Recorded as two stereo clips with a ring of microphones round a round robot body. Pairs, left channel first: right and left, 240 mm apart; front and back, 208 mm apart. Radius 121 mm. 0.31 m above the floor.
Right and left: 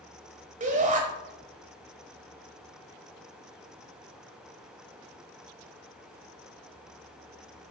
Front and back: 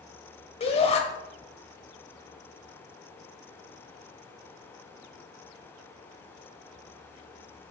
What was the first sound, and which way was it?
A shout, 45° left.